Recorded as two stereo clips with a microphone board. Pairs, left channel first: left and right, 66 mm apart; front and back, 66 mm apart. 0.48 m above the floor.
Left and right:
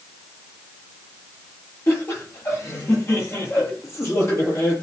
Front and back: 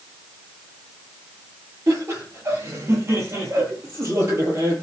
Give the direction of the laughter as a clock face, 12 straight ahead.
7 o'clock.